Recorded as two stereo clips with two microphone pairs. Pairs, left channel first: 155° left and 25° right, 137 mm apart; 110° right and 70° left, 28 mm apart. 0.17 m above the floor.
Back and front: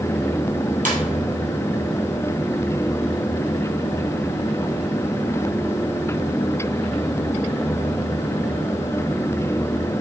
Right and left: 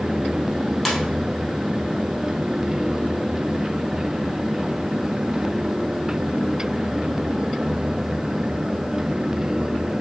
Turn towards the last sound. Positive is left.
turn(degrees=-25)